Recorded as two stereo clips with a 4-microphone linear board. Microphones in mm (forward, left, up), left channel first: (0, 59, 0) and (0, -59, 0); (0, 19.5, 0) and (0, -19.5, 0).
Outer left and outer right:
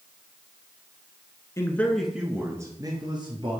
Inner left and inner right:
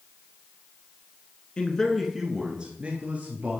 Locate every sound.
1.6 s a man speaking: 25° left (ahead or behind), 1.1 m; by 3.6 s 45° right (ahead or behind), 2 m